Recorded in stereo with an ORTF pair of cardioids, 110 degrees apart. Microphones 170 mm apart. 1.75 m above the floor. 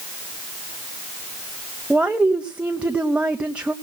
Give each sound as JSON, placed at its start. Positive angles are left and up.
{"t": 1.9, "sound": "a woman speaking", "azimuth_deg": -5, "distance_m": 0.9}